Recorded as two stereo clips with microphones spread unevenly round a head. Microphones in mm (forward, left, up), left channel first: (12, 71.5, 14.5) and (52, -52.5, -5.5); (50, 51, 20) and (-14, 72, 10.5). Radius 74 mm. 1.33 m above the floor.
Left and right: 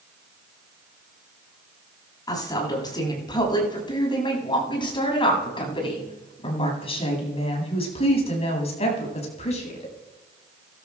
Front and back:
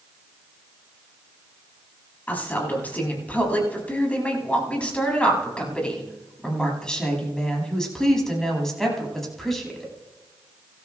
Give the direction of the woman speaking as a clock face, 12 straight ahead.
10 o'clock.